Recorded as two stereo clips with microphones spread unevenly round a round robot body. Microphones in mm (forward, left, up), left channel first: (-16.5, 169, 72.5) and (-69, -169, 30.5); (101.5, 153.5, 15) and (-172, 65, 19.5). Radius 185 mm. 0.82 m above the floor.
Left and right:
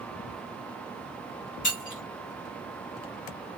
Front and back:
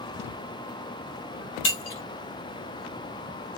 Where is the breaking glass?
15° left, 1.2 m.